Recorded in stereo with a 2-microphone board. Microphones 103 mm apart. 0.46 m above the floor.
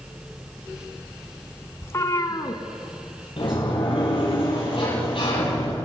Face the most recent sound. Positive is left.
turn(degrees=60)  # may be behind; listen again after turning